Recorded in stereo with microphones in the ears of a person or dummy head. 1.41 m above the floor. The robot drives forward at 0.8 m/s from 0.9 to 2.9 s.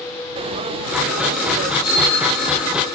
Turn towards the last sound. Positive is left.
turn(degrees=25)  # may be behind; listen again after turning